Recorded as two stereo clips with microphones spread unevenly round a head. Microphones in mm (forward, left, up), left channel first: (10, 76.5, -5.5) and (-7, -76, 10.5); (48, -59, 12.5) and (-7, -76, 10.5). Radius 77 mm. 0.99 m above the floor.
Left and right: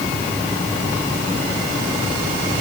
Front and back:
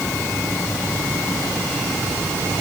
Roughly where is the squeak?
No squeak in this recording.